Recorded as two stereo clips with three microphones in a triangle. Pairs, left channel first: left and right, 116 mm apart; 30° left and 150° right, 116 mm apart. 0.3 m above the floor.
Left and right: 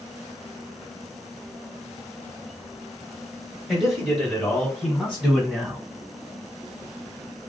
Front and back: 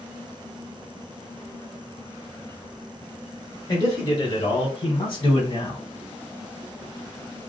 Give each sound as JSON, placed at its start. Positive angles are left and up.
{"t": 3.7, "sound": "a man speaking", "azimuth_deg": 0, "distance_m": 1.4}